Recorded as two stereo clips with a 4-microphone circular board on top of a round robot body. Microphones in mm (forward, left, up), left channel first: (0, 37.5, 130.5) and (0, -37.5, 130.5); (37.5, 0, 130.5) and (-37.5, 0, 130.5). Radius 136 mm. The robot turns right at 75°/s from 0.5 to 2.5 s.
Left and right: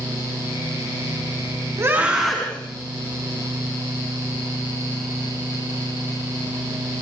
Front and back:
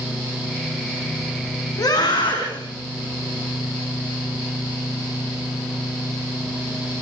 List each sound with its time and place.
1.8 s a scream: 40° right, 4.5 m; by 2.6 s 15° left, 4.5 m